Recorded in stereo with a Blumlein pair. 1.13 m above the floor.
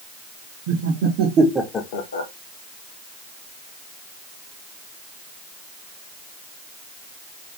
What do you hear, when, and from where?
0.7 s laughter: 55° right, 1.7 m; by 2.3 s 75° left, 1.0 m